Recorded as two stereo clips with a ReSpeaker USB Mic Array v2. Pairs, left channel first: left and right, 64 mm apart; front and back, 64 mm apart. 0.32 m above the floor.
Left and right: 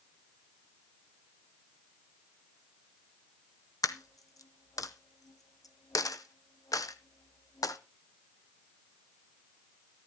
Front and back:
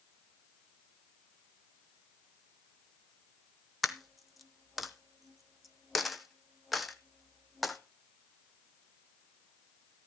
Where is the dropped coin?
95° left, 0.7 m.